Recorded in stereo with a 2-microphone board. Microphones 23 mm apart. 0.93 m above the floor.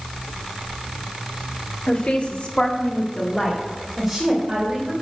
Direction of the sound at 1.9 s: 80° left.